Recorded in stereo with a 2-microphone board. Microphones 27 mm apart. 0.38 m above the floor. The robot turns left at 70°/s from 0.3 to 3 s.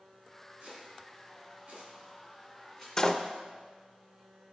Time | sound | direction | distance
0.6 | chopping | 35° right (ahead or behind) | 3 m
3.0 | a door slam | 25° left (ahead or behind) | 0.5 m